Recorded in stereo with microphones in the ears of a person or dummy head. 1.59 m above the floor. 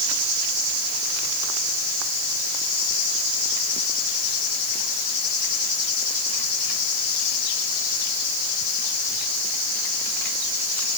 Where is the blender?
I don't hear a blender.